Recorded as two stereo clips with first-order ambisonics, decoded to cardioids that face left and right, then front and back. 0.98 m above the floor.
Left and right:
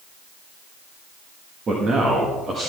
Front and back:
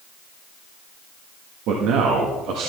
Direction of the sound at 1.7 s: 155° right.